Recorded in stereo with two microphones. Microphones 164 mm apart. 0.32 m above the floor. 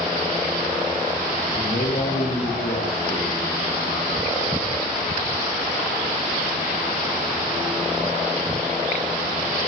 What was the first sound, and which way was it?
A man speaking, 55° left (ahead or behind).